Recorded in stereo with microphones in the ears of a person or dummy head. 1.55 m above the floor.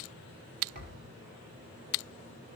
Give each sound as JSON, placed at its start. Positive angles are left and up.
{"t": 0.8, "sound": "a thud", "side_deg": -40, "distance_m": 3.5}